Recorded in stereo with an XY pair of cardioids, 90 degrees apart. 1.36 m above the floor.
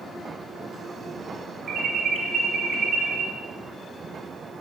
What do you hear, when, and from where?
1.7 s an alarm: 65° right, 2.5 m